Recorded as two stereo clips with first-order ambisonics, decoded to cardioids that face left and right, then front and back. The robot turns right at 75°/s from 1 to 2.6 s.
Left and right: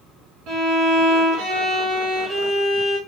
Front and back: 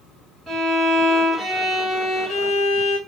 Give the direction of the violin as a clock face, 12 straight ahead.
4 o'clock.